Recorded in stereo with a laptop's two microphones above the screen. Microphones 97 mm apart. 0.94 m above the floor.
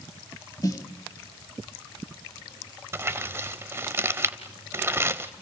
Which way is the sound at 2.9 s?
25° right (ahead or behind).